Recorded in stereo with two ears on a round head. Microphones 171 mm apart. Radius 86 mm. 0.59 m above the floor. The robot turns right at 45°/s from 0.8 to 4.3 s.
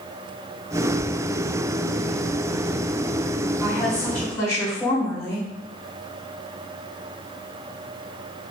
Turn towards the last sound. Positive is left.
turn(degrees=15)